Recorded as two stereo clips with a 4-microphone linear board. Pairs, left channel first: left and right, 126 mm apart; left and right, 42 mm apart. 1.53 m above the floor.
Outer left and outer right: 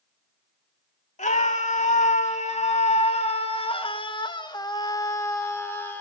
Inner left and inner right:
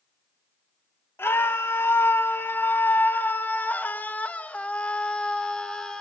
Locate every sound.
1.2 s a scream: 85° left, 2 m; by 6.0 s 15° left (ahead or behind), 2.5 m